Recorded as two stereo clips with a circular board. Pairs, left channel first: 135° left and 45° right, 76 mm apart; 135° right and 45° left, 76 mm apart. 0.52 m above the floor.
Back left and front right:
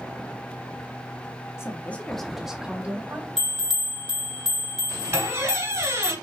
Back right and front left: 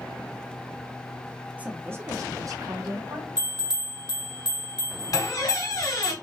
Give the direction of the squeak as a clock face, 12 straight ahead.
3 o'clock.